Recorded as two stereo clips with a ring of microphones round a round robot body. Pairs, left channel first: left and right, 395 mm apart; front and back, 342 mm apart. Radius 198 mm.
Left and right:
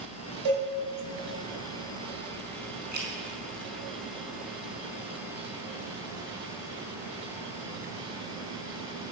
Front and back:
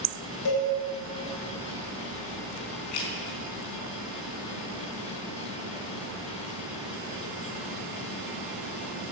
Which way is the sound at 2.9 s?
25° right.